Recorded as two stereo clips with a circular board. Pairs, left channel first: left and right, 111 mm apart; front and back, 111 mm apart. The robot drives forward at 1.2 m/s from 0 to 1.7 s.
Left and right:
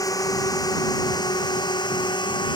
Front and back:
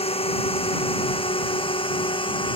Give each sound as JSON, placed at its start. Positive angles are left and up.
{"t": 0.0, "sound": "a drone", "azimuth_deg": 30}